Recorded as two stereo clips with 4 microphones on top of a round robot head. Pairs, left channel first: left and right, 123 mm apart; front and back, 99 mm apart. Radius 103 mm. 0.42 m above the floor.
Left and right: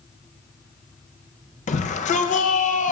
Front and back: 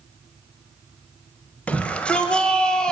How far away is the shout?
About 1.9 m.